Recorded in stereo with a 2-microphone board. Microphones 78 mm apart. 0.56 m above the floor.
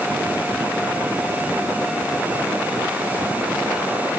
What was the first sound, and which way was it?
Only background noise.